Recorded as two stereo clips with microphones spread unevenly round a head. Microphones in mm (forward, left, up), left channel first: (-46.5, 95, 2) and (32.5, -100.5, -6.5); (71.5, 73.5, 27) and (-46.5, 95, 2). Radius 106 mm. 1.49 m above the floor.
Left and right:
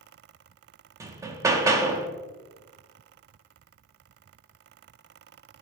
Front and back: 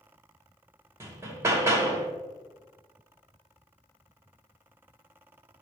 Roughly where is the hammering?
Behind right.